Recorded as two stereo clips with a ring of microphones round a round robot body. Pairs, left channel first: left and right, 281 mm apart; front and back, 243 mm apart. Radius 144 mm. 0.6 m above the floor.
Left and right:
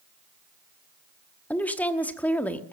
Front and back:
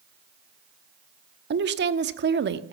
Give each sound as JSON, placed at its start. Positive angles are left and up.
{"t": 1.5, "sound": "a woman speaking", "azimuth_deg": 175, "distance_m": 1.1}